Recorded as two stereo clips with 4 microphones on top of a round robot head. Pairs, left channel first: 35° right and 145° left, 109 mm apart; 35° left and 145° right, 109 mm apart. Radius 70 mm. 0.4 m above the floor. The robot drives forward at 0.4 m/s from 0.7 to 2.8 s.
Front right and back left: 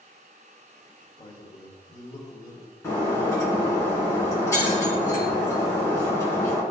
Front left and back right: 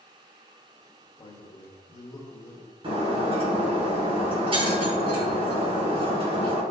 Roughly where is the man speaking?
Ahead.